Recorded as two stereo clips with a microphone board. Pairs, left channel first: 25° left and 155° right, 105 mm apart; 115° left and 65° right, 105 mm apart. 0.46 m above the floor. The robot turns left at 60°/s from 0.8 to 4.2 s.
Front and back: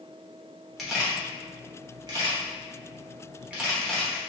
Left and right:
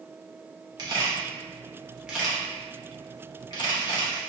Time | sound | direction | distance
0.8 | a camera shutter | 65° right | 0.9 m